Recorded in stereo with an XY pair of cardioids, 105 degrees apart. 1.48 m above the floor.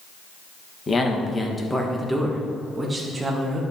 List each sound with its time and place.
0.9 s a man speaking: 30° left, 1.7 m; by 3.6 s 25° right, 2.5 m